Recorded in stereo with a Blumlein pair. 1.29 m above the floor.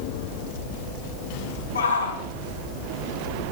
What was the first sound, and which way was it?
A shout, 70° left.